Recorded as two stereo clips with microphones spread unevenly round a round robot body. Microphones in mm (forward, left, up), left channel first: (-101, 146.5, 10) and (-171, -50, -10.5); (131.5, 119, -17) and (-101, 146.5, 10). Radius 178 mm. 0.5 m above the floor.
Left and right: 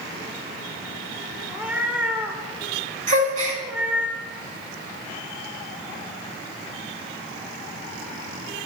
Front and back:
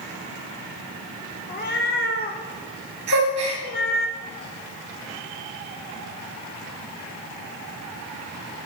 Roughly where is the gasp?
Behind right.